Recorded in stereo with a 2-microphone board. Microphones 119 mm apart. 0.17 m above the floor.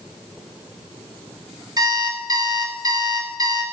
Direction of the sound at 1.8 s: 35° right (ahead or behind).